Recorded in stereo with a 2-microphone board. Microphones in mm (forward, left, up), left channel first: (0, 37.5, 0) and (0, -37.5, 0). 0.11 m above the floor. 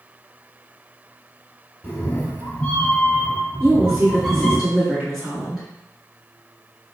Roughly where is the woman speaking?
Centre.